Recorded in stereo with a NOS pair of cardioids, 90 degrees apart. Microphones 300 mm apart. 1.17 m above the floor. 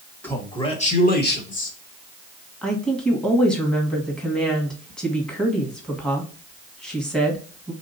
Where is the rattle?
No rattle in this recording.